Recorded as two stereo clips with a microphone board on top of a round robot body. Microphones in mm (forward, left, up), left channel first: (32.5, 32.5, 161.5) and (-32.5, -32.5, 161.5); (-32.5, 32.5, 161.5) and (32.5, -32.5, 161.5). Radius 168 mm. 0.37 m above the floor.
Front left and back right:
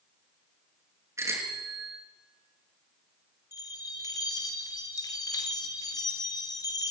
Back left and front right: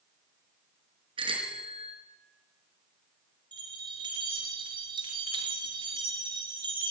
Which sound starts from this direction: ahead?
A bell, at 3.5 s.